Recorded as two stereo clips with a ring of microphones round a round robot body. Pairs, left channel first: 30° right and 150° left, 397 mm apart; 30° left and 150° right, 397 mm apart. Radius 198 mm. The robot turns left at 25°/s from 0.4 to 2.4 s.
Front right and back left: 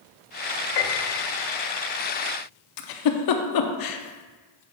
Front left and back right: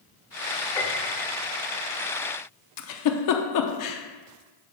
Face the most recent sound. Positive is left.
turn(degrees=-5)